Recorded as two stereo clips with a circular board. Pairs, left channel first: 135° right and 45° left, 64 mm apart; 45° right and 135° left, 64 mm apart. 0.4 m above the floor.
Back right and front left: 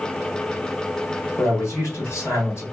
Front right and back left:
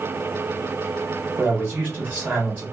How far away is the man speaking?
About 1.2 m.